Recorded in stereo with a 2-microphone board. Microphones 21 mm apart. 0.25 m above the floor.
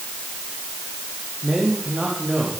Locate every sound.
1.4 s a man speaking: 60° right (ahead or behind), 9 m; by 2.5 s 65° right (ahead or behind), 8.5 m